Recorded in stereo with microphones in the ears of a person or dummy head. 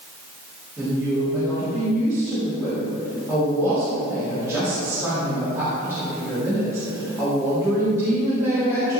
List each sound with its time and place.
0.8 s a woman speaking: 15° right (ahead or behind), 3.5 m